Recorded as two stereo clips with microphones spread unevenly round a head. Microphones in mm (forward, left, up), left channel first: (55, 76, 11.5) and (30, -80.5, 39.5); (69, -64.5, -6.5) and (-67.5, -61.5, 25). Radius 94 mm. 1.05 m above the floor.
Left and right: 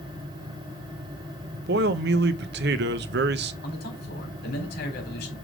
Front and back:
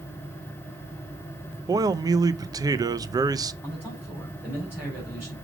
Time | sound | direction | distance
1.7 | a man speaking | 115° right | 0.6 m
3.6 | a man speaking | 95° left | 3.5 m